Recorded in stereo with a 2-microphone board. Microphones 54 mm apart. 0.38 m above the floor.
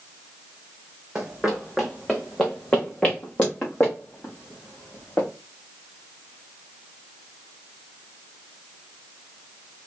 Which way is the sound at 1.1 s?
10° right (ahead or behind).